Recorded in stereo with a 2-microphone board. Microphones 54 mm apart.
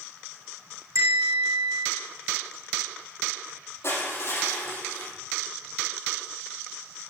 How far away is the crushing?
About 4.5 m.